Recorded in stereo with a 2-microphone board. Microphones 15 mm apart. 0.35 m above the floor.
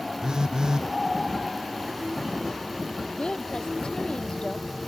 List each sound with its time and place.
0.2 s a phone buzzing: 60° right (ahead or behind)
3.1 s a woman speaking: 60° left (ahead or behind)